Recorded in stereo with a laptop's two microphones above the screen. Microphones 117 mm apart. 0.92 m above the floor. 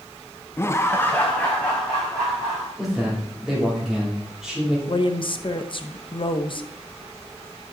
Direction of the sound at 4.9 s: 45° left (ahead or behind).